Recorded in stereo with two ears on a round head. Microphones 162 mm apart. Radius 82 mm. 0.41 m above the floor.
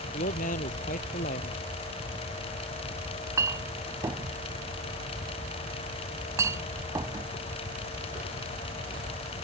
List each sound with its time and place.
0.1 s a man speaking: 45° left (ahead or behind)
3.1 s a clink: 20° right (ahead or behind)